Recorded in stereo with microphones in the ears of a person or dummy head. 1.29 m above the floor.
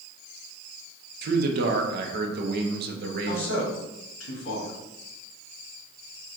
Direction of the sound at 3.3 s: 80° left.